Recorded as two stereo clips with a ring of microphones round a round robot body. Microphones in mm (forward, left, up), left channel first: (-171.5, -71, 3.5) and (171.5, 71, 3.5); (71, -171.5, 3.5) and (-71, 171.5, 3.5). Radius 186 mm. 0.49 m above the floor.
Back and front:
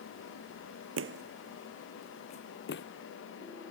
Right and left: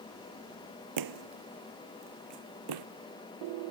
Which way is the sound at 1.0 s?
75° left.